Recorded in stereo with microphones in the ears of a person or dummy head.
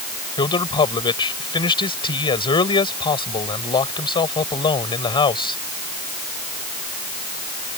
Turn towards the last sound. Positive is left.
turn(degrees=25)  # may be behind; listen again after turning